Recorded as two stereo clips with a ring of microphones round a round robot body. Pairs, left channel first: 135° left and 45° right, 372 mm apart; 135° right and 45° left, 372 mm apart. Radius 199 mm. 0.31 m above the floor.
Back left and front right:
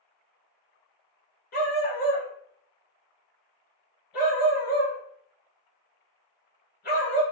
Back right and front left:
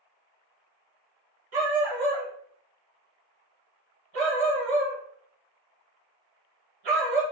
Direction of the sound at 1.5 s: 70° left.